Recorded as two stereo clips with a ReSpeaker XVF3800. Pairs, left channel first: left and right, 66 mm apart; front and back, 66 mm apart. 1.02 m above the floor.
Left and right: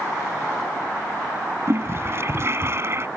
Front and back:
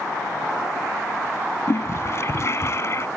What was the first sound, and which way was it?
A toilet flushing, 45° right.